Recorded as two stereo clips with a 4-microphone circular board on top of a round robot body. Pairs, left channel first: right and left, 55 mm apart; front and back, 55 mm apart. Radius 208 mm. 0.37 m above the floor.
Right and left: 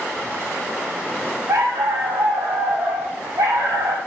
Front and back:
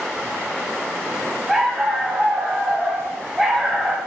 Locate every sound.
1.5 s a dog barking: 90° left, 0.8 m